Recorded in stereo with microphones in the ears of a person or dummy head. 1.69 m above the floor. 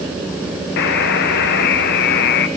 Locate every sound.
0.8 s a buzzer: 60° left (ahead or behind), 1.7 m